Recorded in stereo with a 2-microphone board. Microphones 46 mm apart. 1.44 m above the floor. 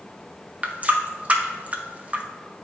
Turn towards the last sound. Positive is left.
turn(degrees=-30)  # may be behind; listen again after turning